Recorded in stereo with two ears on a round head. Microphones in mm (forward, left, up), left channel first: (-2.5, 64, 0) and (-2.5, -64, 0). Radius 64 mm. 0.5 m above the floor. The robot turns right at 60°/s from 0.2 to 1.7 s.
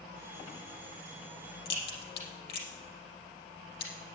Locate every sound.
1.6 s a crack: 80° left, 4.5 m